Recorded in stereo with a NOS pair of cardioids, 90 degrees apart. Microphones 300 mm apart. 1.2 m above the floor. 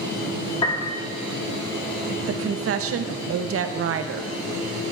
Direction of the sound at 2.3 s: 50° right.